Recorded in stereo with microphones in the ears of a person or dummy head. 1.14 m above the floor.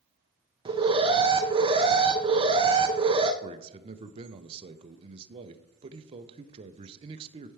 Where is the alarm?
20° right (ahead or behind), 0.6 m.